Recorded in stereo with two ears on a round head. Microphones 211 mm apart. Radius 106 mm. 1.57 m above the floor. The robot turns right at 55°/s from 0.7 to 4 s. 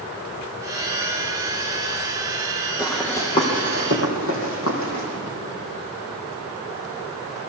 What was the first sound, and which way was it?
Running footsteps, 10° right (ahead or behind).